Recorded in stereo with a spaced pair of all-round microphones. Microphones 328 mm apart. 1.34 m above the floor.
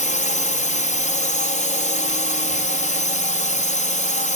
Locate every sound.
0.0 s a drone: 20° left (ahead or behind)